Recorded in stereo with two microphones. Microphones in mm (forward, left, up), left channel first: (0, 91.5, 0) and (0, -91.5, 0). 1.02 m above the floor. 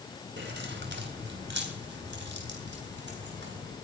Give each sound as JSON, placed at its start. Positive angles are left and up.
{"t": 0.4, "sound": "keys jangling", "side_deg": -80, "distance_m": 3.0}